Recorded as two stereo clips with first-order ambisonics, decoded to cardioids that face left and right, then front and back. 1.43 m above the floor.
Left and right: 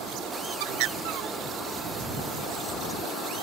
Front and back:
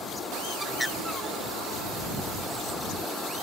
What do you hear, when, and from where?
0.6 s a bird: 85° right